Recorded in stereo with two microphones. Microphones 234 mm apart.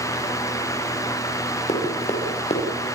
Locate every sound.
1.7 s running footsteps: 25° left (ahead or behind), 6.5 m